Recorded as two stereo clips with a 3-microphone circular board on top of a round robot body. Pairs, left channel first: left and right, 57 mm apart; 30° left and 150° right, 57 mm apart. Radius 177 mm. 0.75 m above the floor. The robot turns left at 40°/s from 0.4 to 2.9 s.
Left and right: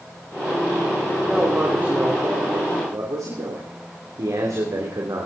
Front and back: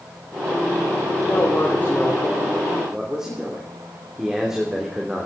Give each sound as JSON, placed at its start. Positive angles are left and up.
{"t": 1.2, "sound": "a man speaking", "azimuth_deg": -5, "distance_m": 3.0}